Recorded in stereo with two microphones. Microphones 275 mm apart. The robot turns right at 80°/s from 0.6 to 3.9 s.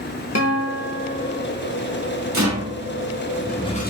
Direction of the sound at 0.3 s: 110° left.